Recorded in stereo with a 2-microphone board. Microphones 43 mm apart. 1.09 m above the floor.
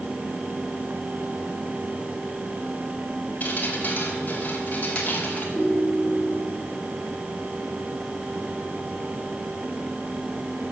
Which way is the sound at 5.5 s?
10° left (ahead or behind).